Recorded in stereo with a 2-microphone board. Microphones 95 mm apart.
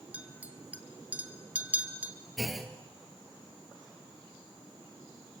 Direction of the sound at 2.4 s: Centre (ahead or behind).